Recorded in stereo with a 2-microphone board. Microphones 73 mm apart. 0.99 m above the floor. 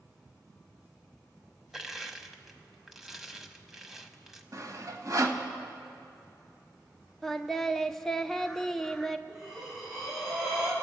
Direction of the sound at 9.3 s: 5° right (ahead or behind).